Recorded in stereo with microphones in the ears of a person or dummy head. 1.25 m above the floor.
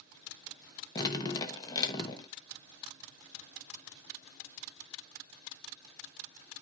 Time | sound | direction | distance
0.9 | dripping | 20° left (ahead or behind) | 1.1 m